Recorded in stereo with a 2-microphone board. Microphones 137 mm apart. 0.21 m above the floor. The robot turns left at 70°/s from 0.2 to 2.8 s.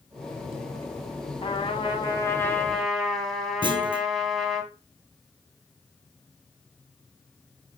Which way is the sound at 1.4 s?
100° left.